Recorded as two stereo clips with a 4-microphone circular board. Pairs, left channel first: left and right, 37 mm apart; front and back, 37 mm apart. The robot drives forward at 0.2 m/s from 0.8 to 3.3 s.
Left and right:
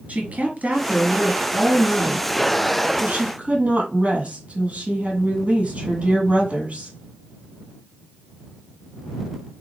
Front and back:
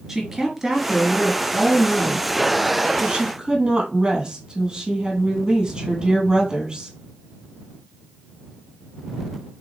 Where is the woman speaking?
110° right, 2.0 m; by 6.9 s 125° right, 2 m.